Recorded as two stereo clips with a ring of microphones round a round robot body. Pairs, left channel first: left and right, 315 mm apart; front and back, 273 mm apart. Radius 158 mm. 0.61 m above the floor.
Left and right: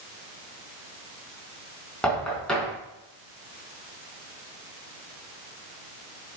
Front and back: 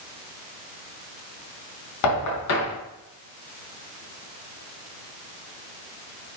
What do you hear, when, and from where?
2.0 s knocking: 5° left, 4 m